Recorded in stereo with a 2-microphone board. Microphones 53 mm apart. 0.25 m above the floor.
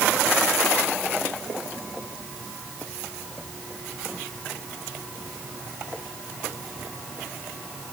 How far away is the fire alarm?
No fire alarm in this recording.